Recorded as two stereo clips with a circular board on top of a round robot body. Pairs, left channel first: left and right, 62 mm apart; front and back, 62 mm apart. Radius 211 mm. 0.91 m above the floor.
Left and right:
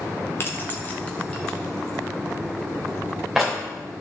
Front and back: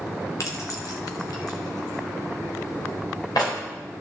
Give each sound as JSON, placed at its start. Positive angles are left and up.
{"t": 0.4, "sound": "keys jangling", "azimuth_deg": 35, "distance_m": 1.5}